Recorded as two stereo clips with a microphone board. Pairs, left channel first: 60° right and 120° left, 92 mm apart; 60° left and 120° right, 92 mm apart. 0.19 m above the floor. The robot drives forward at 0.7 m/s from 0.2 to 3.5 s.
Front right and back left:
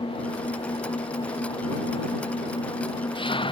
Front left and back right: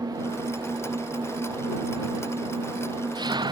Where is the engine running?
75° right; by 3.5 s 85° right.